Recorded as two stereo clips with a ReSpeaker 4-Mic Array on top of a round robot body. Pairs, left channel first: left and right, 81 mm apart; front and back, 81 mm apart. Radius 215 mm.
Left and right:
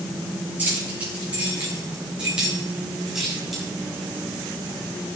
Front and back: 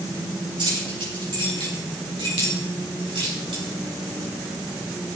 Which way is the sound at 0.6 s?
160° right.